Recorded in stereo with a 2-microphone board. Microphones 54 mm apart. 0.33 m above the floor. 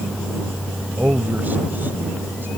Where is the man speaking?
35° right (ahead or behind); by 2.5 s 50° right (ahead or behind).